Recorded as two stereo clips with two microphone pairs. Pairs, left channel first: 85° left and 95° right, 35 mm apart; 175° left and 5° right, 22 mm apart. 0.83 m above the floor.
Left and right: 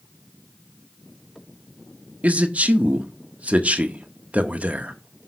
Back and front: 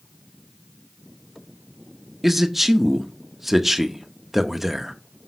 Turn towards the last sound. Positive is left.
turn(degrees=-75)